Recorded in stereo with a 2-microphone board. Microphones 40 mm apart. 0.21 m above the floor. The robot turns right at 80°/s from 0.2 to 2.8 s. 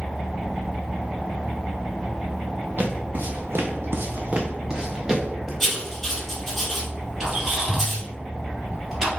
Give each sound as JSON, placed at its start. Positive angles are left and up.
{"t": 2.8, "sound": "footsteps", "side_deg": -50, "distance_m": 1.4}
{"t": 5.6, "sound": "writing", "side_deg": 5, "distance_m": 2.0}
{"t": 7.2, "sound": "a squeak", "side_deg": -10, "distance_m": 2.0}